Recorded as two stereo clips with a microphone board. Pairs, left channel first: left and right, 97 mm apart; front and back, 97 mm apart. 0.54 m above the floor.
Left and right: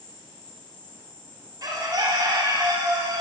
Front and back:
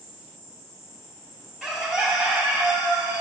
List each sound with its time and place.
0.0 s an insect: 125° left, 2.5 m
1.6 s a bird: 100° right, 0.9 m